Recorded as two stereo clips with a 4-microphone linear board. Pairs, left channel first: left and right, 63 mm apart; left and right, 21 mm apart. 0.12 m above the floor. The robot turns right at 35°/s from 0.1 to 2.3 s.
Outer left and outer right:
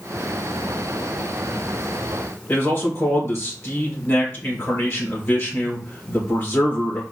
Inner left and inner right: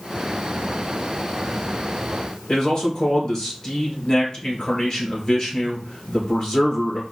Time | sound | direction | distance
2.5 | a man speaking | 40° left (ahead or behind) | 1.8 m